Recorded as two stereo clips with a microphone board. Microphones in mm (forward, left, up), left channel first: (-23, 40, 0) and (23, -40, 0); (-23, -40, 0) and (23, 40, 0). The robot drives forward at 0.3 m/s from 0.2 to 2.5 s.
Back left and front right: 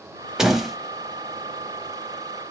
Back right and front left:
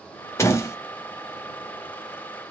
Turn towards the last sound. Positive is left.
turn(degrees=-165)